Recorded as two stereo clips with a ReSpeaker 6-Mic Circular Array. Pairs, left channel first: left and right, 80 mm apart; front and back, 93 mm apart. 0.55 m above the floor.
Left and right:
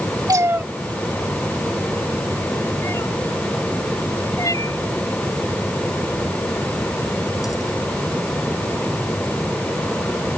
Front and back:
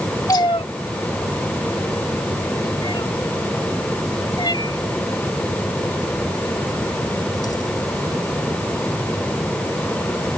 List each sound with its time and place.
0.3 s a cat meowing: 50° right; by 7.8 s 45° left